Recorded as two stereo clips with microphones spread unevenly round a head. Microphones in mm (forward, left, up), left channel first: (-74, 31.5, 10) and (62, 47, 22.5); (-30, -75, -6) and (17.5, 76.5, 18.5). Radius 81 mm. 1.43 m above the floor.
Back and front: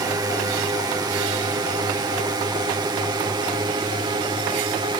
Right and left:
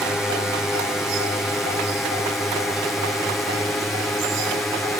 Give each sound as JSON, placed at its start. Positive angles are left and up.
{"t": 0.0, "sound": "a drone", "azimuth_deg": -30}